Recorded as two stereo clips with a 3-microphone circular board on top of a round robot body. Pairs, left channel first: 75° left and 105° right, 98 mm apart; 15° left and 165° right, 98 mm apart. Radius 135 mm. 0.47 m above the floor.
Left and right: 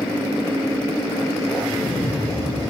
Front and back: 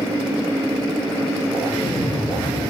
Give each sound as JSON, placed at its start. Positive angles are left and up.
{"t": 1.6, "sound": "an explosion", "azimuth_deg": -5, "distance_m": 10.0}